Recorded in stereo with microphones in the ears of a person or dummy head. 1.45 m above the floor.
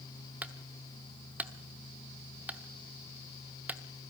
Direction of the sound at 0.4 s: 10° right (ahead or behind).